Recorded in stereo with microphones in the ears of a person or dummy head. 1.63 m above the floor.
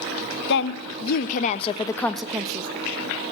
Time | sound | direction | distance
0.5 | a woman speaking | 60° left (ahead or behind) | 1.1 m